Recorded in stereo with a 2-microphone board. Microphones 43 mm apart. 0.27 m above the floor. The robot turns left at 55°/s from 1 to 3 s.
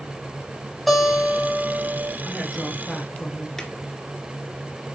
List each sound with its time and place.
0.9 s a guitar: straight ahead, 2.5 m; by 2.1 s 60° right, 2.5 m
2.2 s a woman speaking: 150° right, 3.5 m; by 3.5 s 170° left, 3.5 m
3.6 s a drawer: 10° left (ahead or behind), 1.8 m